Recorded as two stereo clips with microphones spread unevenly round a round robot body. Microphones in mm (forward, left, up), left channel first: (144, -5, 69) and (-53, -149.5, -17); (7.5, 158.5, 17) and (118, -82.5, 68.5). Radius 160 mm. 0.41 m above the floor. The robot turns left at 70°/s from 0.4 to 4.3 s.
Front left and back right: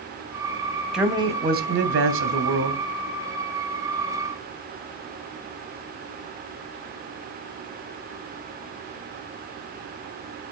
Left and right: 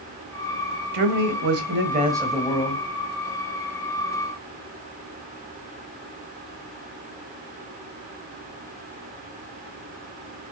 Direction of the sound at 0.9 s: 65° right.